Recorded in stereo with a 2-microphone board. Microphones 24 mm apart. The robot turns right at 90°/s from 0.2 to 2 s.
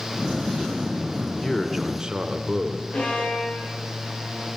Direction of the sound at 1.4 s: 150° left.